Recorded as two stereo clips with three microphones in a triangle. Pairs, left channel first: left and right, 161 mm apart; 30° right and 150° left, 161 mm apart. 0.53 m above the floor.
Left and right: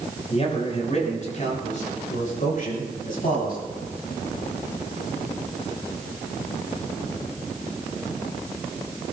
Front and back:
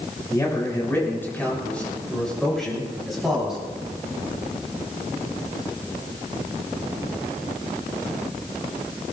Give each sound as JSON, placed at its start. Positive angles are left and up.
{"t": 0.3, "sound": "a man speaking", "azimuth_deg": 40, "distance_m": 6.5}